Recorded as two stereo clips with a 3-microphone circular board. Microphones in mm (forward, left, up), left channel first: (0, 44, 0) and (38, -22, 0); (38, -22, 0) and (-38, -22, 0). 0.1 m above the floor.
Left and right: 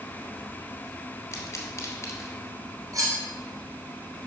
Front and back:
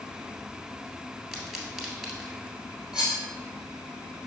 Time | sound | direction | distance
1.3 | a pop | 100° left | 2 m
2.9 | cutlery clinking | 95° right | 2.5 m